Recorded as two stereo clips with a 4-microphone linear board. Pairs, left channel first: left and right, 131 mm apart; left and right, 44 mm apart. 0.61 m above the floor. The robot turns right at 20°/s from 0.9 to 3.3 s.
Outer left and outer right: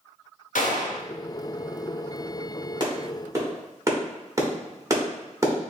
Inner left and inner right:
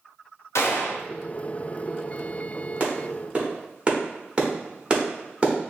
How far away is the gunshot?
About 0.7 m.